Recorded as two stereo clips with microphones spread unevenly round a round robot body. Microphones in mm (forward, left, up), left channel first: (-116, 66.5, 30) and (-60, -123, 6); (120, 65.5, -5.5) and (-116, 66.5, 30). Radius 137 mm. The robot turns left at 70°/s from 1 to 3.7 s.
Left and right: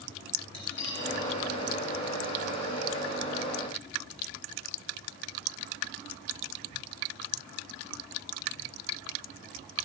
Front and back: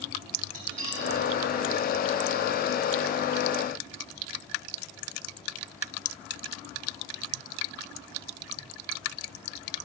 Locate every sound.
0.5 s cutlery clinking: 170° left, 4 m; by 1.1 s 160° left, 4 m